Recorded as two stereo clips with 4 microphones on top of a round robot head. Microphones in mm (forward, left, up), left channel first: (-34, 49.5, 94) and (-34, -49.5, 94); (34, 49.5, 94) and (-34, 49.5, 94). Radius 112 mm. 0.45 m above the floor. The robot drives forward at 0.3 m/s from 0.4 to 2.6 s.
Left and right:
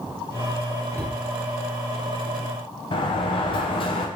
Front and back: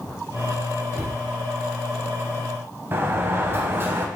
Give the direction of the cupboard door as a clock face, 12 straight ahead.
7 o'clock.